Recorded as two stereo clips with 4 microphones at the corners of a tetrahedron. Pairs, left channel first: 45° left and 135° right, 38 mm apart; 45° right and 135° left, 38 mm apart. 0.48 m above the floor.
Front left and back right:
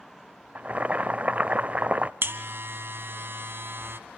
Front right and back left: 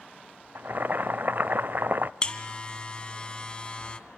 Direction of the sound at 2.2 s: 110° right.